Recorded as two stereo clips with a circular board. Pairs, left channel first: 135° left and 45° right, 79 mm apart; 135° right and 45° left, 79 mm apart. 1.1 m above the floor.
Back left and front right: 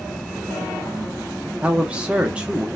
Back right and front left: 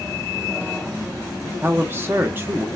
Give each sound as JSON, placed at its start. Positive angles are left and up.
{"t": 1.6, "sound": "a man speaking", "azimuth_deg": 15, "distance_m": 0.8}